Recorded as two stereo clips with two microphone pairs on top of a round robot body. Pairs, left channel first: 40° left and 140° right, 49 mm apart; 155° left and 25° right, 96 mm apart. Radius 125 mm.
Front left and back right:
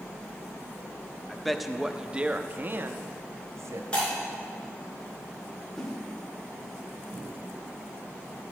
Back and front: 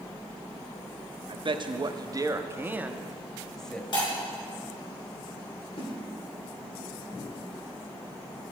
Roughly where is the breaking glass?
Left.